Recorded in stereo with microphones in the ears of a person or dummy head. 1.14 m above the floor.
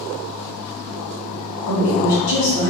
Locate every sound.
1.7 s a woman speaking: 70° left (ahead or behind), 1.9 m